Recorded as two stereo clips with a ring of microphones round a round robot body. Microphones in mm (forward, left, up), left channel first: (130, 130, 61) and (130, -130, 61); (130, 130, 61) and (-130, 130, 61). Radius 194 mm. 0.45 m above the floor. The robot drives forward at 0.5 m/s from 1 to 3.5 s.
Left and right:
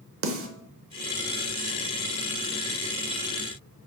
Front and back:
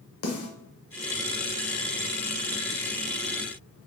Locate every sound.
0.2 s a snare drum: 50° right, 0.7 m